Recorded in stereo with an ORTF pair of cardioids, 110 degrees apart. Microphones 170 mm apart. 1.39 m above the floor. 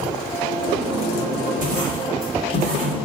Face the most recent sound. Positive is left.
turn(degrees=-50)